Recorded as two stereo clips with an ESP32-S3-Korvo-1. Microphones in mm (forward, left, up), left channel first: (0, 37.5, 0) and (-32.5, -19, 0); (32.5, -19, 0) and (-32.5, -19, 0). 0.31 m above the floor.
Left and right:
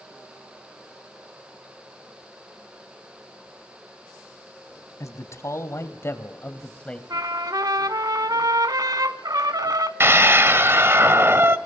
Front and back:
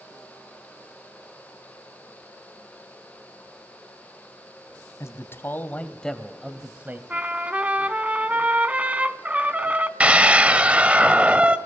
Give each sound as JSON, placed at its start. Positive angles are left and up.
{"t": 5.0, "sound": "a man speaking", "azimuth_deg": 35, "distance_m": 2.0}
{"t": 7.1, "sound": "a trumpet", "azimuth_deg": -110, "distance_m": 0.9}
{"t": 10.0, "sound": "a scream", "azimuth_deg": -120, "distance_m": 1.3}